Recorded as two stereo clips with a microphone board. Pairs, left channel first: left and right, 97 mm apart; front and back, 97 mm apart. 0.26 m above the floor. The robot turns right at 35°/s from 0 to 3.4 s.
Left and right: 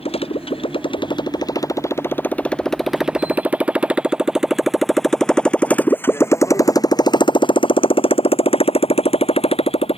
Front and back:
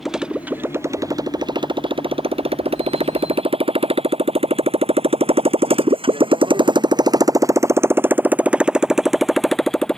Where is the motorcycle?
90° left; by 10.0 s 85° left.